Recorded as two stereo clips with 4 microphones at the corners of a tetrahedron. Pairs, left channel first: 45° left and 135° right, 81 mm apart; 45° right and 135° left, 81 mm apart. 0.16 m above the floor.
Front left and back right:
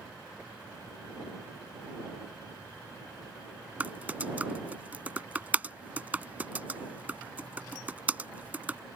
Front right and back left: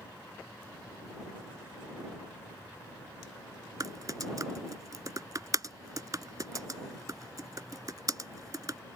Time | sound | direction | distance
3.8 | typing on a keyboard | 160° left | ?